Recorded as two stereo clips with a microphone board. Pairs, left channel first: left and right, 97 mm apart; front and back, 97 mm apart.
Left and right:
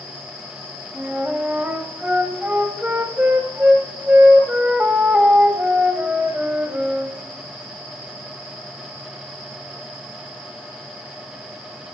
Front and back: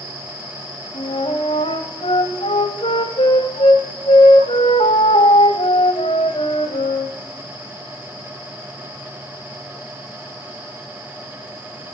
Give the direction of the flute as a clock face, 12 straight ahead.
1 o'clock.